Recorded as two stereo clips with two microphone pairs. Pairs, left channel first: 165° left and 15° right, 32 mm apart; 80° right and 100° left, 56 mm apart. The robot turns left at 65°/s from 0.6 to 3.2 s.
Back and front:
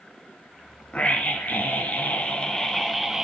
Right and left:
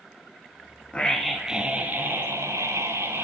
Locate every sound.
0.9 s a scream: 150° right, 2 m; by 3.2 s 65° left, 2 m